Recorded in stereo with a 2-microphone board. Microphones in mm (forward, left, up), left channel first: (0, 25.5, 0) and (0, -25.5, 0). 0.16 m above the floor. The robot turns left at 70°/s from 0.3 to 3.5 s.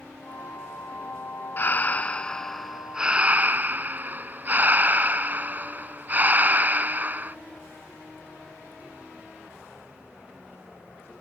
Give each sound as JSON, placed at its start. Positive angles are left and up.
{"t": 1.6, "sound": "breathing", "azimuth_deg": 75}